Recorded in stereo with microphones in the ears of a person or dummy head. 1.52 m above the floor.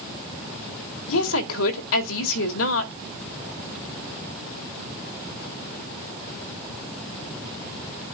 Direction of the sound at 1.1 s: 80° left.